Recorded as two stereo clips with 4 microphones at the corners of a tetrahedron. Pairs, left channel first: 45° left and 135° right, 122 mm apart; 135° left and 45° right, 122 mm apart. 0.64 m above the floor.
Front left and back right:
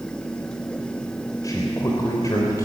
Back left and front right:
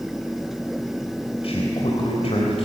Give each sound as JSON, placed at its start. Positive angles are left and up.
{"t": 1.4, "sound": "a man speaking", "azimuth_deg": 105, "distance_m": 3.5}